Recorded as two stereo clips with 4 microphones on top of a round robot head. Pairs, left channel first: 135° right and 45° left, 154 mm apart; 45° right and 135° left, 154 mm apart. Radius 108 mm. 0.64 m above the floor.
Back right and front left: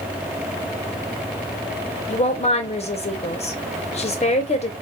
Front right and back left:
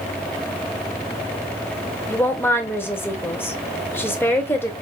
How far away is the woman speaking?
About 1.2 m.